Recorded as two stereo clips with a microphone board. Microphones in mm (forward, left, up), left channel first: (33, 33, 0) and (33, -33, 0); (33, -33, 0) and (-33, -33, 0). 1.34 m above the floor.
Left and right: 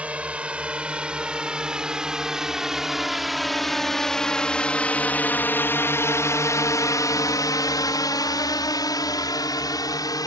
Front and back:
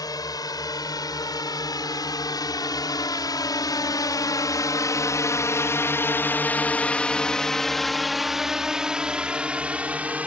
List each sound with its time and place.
0.0 s a drone: 20° right; by 10.3 s 110° left